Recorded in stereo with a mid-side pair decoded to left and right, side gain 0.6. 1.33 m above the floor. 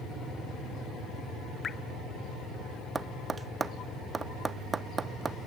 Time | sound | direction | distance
1.6 | dripping | 30° left | 1.0 m
3.0 | tapping | 25° right | 0.7 m